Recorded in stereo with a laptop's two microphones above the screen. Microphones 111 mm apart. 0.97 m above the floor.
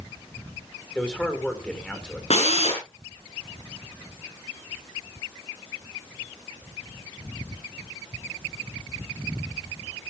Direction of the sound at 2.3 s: 70° left (ahead or behind).